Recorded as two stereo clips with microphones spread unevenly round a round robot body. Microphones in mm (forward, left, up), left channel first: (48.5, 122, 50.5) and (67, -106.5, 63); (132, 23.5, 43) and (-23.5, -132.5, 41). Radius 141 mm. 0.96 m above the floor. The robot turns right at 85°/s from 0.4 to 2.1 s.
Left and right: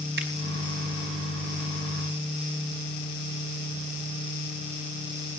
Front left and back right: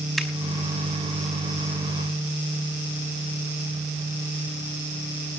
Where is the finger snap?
45° right, 5 m.